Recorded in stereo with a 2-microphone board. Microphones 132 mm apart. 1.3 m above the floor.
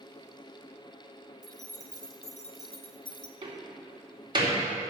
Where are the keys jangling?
70° left (ahead or behind), 1.3 m; by 3.3 s 30° left (ahead or behind), 0.9 m.